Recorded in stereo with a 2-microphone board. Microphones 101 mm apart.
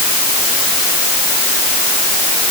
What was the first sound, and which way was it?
Only background noise.